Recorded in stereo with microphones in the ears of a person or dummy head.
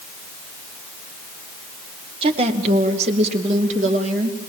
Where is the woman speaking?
35° right (ahead or behind), 2 m; by 4.4 s 45° right (ahead or behind), 3.5 m.